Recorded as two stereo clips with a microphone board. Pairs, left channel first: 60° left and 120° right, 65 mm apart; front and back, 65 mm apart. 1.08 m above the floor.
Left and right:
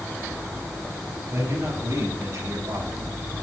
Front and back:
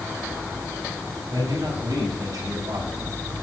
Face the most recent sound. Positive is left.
turn(degrees=-150)